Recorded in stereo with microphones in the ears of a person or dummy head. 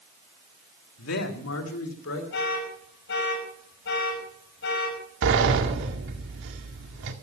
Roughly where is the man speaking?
Left.